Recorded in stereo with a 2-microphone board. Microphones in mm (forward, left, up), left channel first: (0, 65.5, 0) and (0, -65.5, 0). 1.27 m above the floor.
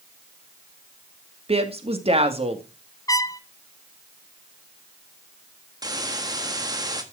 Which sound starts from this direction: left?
A trumpet, at 3.1 s.